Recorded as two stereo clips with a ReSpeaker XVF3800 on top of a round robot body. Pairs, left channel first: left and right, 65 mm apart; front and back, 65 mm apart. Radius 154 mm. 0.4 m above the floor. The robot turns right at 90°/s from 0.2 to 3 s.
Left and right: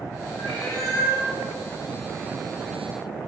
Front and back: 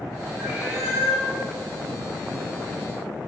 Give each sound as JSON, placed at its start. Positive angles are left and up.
{"t": 0.4, "sound": "a cat meowing", "azimuth_deg": 95, "distance_m": 2.5}